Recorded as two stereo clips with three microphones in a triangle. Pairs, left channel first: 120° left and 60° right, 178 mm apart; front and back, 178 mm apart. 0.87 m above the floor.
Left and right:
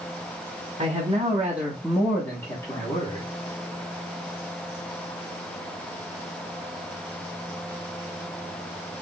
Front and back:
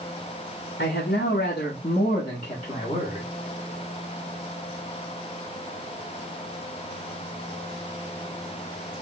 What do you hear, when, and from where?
0.8 s a man speaking: straight ahead, 1.3 m; by 3.2 s 60° left, 1.5 m